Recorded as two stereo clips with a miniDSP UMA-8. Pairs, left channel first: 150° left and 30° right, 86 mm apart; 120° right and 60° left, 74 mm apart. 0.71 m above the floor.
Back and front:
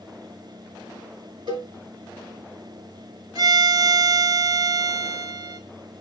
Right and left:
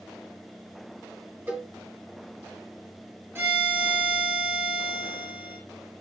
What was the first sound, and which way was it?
A cowbell, 5° right.